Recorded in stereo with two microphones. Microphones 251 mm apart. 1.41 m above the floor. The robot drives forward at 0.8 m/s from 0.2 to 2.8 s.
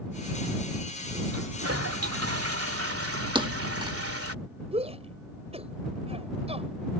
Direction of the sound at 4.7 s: 25° right (ahead or behind).